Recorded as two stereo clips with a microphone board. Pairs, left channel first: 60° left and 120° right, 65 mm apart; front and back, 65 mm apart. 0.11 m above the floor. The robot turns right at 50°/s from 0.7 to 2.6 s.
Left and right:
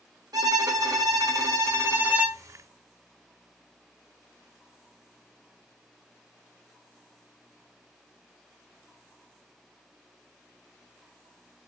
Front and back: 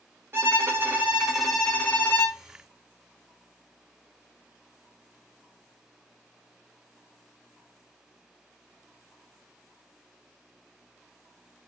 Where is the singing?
I don't hear singing.